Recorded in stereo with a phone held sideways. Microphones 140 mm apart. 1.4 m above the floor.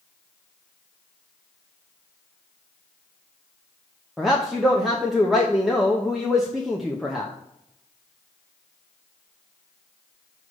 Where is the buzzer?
I don't hear a buzzer.